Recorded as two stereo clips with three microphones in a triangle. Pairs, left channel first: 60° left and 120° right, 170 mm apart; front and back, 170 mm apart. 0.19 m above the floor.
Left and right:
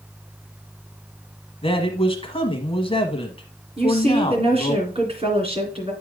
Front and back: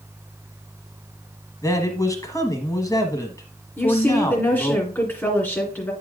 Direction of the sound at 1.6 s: 50° left.